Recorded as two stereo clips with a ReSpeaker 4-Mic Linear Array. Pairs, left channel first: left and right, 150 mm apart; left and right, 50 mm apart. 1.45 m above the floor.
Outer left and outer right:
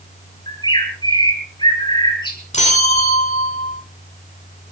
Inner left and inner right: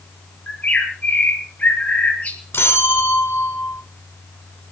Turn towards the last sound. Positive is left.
turn(degrees=50)  # may be behind; listen again after turning